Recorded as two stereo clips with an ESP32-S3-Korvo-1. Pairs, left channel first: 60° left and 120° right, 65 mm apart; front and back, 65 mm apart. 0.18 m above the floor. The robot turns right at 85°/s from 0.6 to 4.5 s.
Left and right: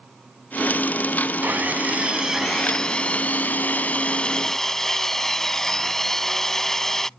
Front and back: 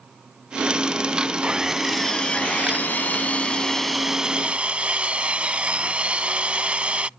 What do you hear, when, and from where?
1.4 s sawing: 125° right; by 7.1 s 135° left